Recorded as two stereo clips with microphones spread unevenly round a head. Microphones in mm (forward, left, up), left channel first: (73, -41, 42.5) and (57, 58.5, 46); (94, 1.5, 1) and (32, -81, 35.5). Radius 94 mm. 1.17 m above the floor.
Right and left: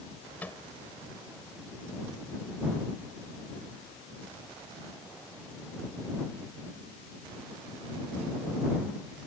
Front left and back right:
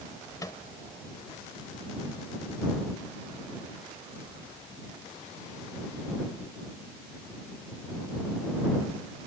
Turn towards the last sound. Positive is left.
turn(degrees=-5)